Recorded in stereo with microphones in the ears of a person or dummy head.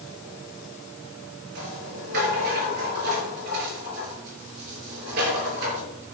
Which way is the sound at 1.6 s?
60° right (ahead or behind).